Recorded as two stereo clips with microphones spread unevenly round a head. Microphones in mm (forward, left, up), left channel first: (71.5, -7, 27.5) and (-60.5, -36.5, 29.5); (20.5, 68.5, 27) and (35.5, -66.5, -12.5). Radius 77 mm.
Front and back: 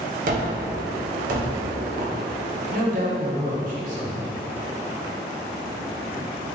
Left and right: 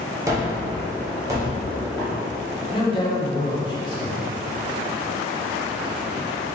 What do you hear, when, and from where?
0.3 s a gunshot: 160° right, 0.6 m
2.7 s a woman speaking: 155° left, 0.8 m